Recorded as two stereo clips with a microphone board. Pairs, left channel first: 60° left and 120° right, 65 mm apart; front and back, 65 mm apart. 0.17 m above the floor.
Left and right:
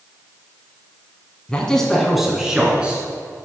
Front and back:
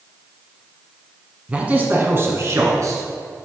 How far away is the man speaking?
About 1.3 m.